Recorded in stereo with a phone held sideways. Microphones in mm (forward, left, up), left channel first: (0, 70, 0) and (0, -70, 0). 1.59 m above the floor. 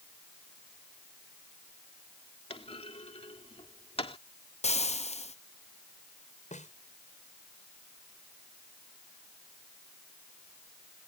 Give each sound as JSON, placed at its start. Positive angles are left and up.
{"t": 2.5, "sound": "a clunk", "side_deg": 45}
{"t": 4.6, "sound": "frying", "side_deg": 50}
{"t": 6.5, "sound": "a snare drum", "side_deg": 60}